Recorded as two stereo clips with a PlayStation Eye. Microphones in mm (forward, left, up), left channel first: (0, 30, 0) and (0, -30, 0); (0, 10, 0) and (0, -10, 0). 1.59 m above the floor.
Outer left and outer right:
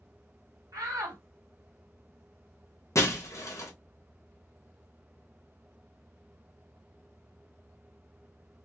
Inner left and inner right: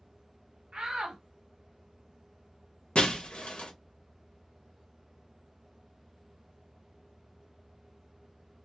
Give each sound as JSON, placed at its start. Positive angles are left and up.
{"t": 0.7, "sound": "a shout", "side_deg": -70, "distance_m": 1.3}
{"t": 3.0, "sound": "breaking glass", "side_deg": 55, "distance_m": 1.2}